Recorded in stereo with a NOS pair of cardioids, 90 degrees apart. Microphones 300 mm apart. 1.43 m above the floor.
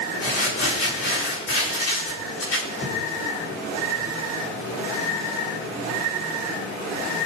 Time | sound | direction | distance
0.2 | crumpling | 45° left | 5.5 m